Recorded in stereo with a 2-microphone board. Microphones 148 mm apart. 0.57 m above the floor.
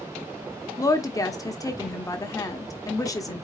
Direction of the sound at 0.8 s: 20° left (ahead or behind).